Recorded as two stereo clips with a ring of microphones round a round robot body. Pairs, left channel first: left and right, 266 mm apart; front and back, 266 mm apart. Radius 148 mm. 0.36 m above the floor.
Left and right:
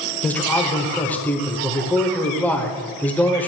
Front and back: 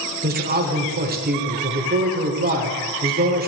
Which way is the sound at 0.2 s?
170° left.